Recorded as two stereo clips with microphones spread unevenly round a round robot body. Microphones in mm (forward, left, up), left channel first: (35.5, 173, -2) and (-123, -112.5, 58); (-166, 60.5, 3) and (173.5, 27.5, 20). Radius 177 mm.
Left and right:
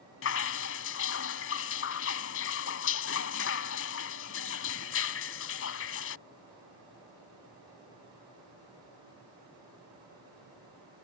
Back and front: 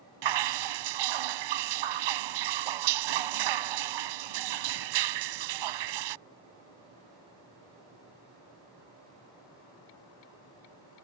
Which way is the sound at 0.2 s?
5° left.